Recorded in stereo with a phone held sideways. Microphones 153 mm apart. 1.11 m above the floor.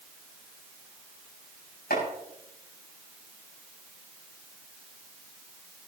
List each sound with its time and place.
1.9 s chopping: 85° left, 6.5 m